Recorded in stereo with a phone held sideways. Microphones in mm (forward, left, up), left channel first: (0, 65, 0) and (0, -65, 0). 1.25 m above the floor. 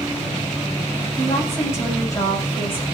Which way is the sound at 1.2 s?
20° left (ahead or behind).